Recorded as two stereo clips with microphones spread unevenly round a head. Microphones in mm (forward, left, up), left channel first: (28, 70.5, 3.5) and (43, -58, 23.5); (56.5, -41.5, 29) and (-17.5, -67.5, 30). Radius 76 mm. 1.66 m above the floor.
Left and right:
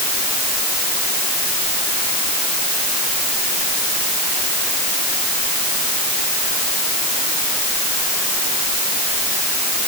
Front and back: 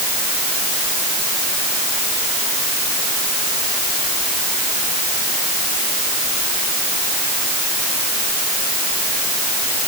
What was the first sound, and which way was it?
Only background noise.